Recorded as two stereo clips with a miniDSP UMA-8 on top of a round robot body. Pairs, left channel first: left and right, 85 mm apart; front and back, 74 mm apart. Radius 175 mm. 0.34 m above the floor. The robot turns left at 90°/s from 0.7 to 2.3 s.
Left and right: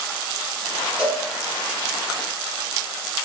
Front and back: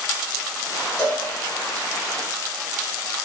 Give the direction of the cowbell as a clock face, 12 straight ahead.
3 o'clock.